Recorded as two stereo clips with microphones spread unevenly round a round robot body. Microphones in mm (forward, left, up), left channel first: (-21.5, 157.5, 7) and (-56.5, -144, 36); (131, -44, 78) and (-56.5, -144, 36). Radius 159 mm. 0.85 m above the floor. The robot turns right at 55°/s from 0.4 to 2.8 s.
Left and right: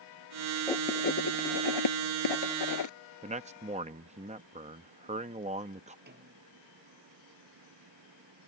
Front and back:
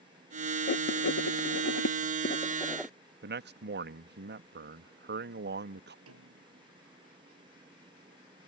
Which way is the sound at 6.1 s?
155° right.